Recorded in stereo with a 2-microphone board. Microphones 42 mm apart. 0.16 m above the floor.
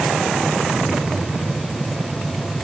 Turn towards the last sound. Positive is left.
No sound to turn to.